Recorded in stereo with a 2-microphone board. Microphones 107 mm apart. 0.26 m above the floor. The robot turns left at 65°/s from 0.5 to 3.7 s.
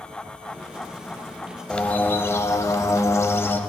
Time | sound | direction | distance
1.7 | a bird | 10° left (ahead or behind) | 0.6 m